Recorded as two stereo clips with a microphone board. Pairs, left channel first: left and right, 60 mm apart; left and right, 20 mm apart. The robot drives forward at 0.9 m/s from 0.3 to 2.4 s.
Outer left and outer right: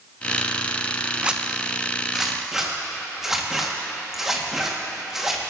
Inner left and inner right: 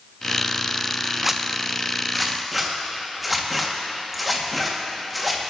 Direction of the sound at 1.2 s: 20° right (ahead or behind).